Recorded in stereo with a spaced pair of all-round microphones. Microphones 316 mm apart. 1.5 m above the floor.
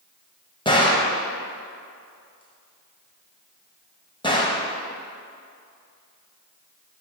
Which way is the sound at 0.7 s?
15° left (ahead or behind).